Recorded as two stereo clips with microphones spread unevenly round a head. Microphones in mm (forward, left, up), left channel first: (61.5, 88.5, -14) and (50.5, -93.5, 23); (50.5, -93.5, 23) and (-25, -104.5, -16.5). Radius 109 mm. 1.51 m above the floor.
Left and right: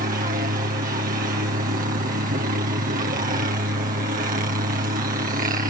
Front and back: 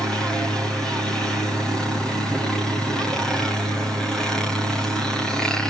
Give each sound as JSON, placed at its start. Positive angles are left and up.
{"t": 0.0, "sound": "a helicopter", "azimuth_deg": -115}